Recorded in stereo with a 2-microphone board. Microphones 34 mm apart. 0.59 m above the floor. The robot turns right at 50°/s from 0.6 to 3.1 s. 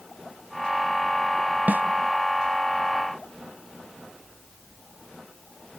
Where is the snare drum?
65° right (ahead or behind), 1.1 m; by 1.8 s 75° right (ahead or behind), 1.1 m.